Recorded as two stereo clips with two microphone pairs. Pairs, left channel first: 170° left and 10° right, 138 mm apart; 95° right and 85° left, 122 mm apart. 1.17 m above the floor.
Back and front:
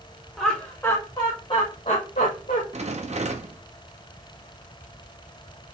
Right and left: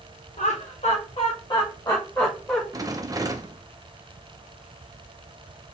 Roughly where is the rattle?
Ahead left.